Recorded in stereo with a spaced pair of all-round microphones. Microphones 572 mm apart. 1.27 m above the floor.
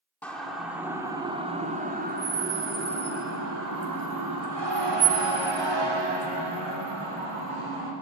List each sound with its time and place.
0.2 s a siren: 5° left (ahead or behind), 3.5 m; by 7.9 s 65° right (ahead or behind), 5 m